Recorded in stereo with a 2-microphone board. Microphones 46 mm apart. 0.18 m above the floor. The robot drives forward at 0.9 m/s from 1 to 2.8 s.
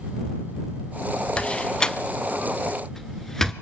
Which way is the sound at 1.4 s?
20° left (ahead or behind).